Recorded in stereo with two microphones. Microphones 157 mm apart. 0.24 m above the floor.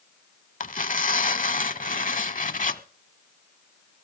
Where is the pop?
No pop in this recording.